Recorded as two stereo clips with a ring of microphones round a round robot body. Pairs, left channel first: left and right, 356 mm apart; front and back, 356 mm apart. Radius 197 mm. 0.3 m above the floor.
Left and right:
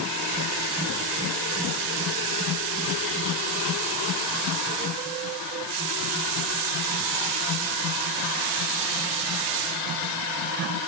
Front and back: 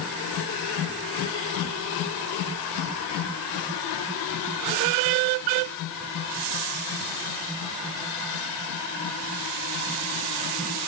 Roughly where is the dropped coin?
No dropped coin in this recording.